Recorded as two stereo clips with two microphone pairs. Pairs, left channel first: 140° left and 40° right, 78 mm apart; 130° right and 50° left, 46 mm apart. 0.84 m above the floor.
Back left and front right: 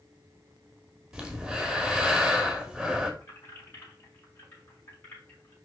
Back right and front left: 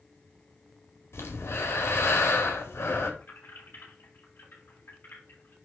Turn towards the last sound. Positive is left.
turn(degrees=-165)